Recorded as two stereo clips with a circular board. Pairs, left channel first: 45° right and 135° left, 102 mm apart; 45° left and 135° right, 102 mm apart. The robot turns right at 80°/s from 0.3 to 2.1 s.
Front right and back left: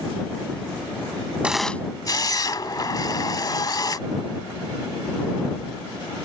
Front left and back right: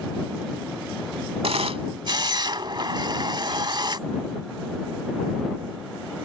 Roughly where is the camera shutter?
Behind right.